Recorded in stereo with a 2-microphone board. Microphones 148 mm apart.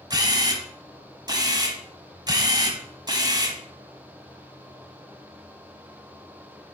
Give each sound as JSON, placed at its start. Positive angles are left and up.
{"t": 0.1, "sound": "a camera shutter", "side_deg": -25, "distance_m": 1.2}